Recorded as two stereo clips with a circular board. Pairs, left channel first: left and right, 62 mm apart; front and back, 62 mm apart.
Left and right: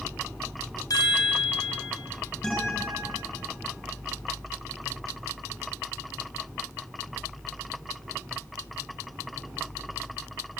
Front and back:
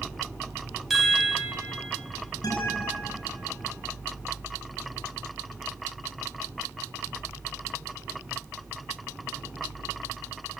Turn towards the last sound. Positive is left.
turn(degrees=10)